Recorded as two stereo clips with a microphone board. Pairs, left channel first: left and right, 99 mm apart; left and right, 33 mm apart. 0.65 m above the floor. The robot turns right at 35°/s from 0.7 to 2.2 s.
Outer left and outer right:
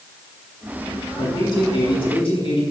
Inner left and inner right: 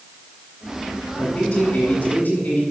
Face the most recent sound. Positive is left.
turn(degrees=70)